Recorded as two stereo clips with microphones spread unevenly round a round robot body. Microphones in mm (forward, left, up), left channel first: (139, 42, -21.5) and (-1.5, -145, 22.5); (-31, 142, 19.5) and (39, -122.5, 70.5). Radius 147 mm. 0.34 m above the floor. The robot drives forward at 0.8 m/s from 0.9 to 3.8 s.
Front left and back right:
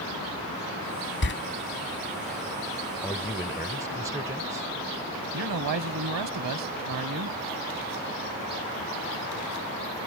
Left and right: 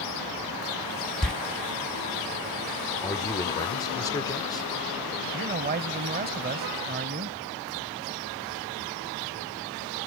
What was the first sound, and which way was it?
A door slam, 20° left.